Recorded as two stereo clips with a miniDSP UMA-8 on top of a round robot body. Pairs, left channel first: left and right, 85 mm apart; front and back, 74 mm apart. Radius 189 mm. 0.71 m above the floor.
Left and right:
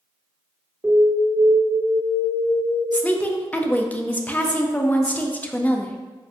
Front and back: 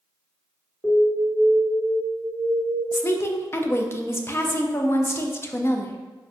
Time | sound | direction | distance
0.8 | an alarm | 25° right | 1.7 m
2.9 | a woman speaking | 30° left | 0.6 m